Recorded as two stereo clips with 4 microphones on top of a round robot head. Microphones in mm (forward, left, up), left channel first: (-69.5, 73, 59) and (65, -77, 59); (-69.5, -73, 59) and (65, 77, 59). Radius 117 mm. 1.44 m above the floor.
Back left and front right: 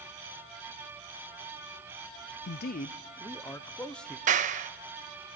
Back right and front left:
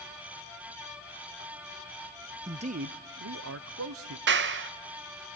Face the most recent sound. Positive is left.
turn(degrees=10)